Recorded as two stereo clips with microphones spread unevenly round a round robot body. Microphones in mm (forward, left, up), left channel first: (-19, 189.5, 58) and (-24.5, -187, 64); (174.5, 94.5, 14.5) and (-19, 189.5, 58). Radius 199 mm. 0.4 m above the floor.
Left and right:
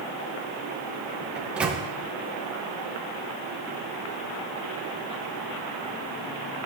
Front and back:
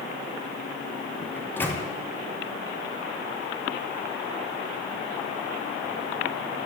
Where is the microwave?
5° right, 0.7 m.